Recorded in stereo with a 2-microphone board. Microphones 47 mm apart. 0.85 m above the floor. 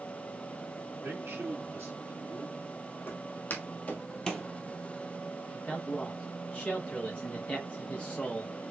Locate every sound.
1.0 s a man speaking: 65° right (ahead or behind), 3.5 m; by 3.0 s 40° right (ahead or behind), 1.7 m
3.1 s footsteps: 45° left (ahead or behind), 1.7 m; by 4.5 s centre (ahead or behind), 1.0 m
5.5 s a man speaking: 30° left (ahead or behind), 0.8 m